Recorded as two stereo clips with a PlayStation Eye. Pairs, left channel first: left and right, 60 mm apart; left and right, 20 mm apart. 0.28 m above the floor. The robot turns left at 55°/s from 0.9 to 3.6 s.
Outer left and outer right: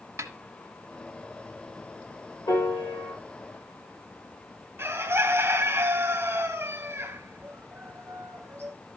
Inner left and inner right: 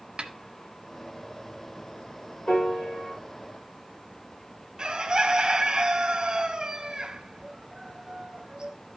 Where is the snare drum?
55° right (ahead or behind), 1.1 m.